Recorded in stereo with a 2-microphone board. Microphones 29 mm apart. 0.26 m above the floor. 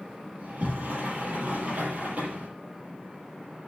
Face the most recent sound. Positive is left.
turn(degrees=-65)  # may be behind; listen again after turning